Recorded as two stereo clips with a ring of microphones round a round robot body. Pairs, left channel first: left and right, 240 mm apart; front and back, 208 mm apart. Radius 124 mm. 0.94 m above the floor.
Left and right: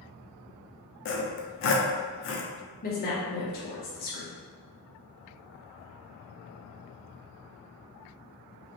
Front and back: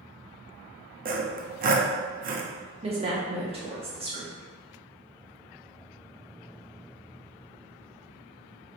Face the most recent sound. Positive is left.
turn(degrees=125)